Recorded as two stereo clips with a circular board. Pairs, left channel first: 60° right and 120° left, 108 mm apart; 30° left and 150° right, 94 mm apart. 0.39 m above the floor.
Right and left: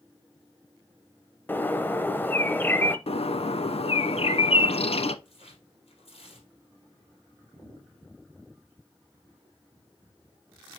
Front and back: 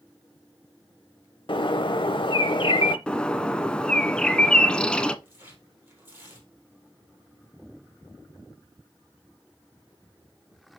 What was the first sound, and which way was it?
A bird, 10° left.